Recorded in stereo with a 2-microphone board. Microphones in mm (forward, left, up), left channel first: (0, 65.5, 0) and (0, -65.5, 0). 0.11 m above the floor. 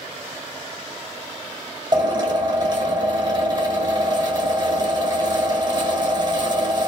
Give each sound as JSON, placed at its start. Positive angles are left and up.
{"t": 1.9, "sound": "a drill", "side_deg": -35, "distance_m": 1.3}